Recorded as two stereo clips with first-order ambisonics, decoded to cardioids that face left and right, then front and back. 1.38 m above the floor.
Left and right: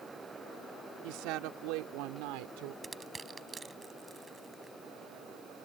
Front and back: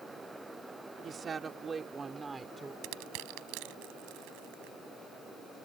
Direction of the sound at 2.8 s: 165° right.